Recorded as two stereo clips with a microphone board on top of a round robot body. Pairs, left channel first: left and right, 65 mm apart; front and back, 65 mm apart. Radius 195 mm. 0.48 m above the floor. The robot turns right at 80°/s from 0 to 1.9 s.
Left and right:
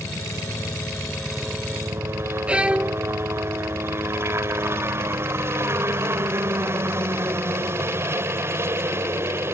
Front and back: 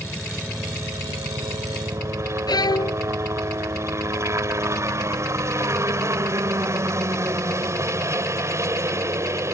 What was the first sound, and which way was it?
A helicopter, 70° left.